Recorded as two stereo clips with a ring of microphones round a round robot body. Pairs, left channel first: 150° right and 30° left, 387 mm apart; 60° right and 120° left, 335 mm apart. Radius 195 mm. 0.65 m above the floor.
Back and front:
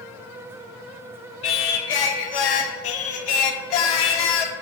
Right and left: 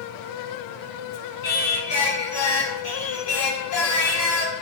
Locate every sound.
1.4 s singing: 115° right, 0.7 m